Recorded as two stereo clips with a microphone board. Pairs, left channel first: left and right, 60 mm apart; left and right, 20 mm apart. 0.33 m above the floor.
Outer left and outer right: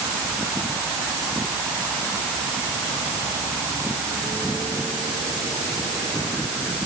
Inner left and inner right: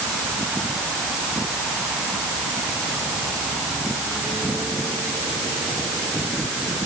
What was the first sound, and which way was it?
Only background noise.